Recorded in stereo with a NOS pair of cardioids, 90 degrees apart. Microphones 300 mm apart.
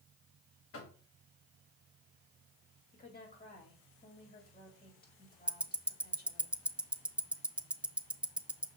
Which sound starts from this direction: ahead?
Ticking, at 5.5 s.